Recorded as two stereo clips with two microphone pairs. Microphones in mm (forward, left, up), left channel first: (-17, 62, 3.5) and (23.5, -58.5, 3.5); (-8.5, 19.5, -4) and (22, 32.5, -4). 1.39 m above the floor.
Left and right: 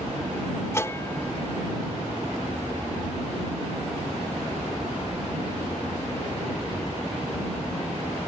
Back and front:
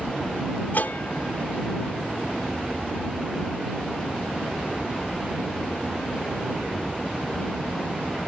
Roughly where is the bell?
Behind.